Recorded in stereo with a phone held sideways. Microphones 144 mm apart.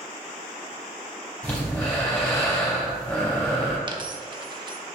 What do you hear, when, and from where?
1.4 s breathing: 5° left (ahead or behind), 3 m
3.9 s a dropped coin: 35° right (ahead or behind), 0.7 m